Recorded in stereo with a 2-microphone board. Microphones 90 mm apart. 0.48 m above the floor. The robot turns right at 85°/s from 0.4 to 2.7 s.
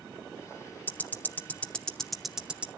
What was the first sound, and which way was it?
Ticking, 20° left (ahead or behind).